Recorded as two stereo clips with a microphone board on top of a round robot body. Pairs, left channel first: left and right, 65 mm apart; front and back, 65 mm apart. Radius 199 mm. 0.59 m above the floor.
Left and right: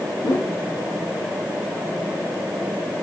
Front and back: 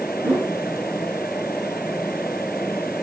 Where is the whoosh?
80° left, 6 m.